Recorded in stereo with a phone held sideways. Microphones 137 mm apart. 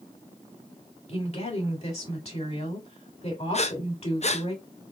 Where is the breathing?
55° left (ahead or behind), 0.6 m.